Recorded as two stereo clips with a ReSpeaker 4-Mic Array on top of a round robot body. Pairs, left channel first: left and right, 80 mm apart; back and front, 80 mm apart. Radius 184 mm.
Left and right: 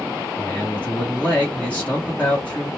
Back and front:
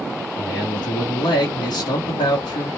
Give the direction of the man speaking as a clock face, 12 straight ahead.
7 o'clock.